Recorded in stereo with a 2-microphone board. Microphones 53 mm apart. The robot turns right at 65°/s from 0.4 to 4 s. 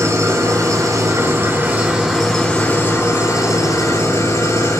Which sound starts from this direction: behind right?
An engine running, at 0.0 s.